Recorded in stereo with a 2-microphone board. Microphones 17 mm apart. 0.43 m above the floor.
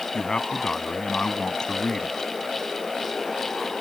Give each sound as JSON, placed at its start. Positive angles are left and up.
{"t": 0.1, "sound": "a man speaking", "side_deg": 50}